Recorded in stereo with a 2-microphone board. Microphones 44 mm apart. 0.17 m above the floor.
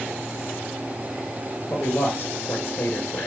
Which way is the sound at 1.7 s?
60° left (ahead or behind).